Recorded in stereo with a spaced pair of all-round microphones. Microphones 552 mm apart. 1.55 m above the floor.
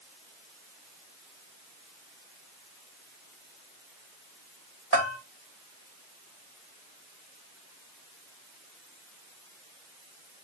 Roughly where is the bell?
Right.